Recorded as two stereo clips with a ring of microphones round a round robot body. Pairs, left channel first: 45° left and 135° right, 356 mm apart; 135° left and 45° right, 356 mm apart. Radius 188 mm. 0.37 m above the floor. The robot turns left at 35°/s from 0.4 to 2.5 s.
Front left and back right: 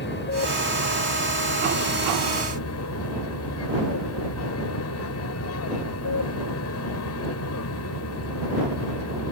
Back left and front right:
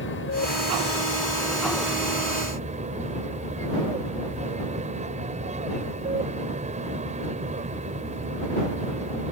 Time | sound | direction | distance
0.0 | an aircraft | 95° left | ?